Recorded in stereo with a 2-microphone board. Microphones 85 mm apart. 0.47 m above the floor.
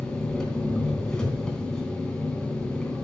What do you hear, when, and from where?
0.0 s an engine running: 10° left (ahead or behind), 3 m